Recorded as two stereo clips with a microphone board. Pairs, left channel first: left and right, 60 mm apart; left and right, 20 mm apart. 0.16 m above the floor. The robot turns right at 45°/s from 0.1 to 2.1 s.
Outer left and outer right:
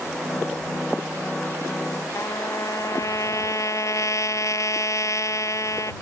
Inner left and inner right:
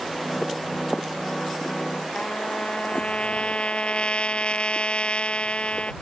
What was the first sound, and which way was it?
A trumpet, 60° left (ahead or behind).